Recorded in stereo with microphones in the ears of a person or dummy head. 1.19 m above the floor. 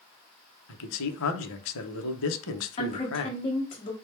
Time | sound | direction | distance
0.7 | a man speaking | 75° left (ahead or behind) | 0.5 m
2.8 | a woman speaking | 30° left (ahead or behind) | 1.1 m